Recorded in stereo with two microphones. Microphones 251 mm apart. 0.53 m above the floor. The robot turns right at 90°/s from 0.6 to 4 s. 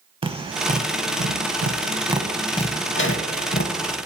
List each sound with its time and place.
0.2 s tapping: 20° right (ahead or behind), 0.6 m; by 4.0 s 30° left (ahead or behind), 0.6 m